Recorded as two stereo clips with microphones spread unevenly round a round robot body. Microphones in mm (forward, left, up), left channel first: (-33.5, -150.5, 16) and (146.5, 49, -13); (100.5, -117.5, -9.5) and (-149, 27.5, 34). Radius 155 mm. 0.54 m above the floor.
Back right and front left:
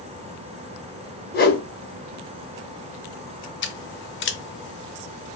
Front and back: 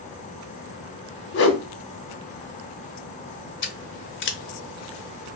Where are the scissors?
80° right, 0.7 m.